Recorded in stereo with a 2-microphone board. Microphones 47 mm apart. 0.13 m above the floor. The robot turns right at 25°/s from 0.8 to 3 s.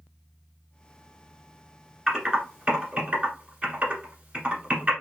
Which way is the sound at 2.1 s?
15° right (ahead or behind).